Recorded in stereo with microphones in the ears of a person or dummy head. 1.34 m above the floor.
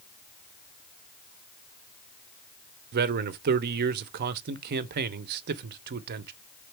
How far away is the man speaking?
About 0.6 m.